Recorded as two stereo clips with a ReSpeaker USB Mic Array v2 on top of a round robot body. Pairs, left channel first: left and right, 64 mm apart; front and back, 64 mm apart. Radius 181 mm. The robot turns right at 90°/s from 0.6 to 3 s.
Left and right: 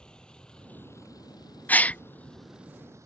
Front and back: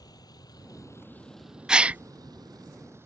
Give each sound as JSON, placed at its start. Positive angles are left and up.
{"t": 0.0, "sound": "a vehicle", "azimuth_deg": 15}
{"t": 1.7, "sound": "a gasp", "azimuth_deg": 115}